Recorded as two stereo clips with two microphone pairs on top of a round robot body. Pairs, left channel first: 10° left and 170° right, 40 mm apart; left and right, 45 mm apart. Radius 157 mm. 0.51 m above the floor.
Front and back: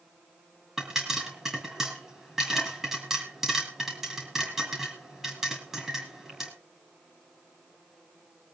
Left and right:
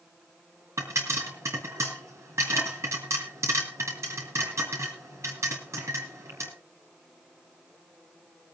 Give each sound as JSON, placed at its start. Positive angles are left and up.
{"t": 0.8, "sound": "a pop", "azimuth_deg": -90, "distance_m": 4.0}